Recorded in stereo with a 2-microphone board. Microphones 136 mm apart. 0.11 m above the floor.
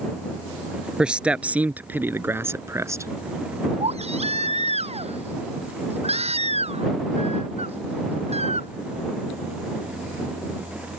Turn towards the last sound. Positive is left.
turn(degrees=-50)  # may be behind; listen again after turning